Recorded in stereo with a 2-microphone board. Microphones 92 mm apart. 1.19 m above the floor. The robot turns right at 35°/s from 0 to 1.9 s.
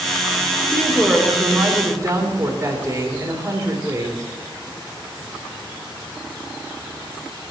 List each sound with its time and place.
0.7 s a woman speaking: 165° left, 3 m; by 4.3 s 155° right, 3 m